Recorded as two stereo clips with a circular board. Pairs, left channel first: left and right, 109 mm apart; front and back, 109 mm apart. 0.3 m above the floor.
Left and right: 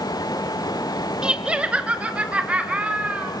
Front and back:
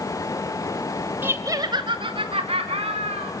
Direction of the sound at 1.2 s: 155° right.